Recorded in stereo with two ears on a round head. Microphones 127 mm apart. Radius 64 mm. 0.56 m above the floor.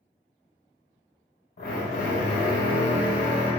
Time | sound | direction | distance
1.6 | a drill | 70° left (ahead or behind) | 0.9 m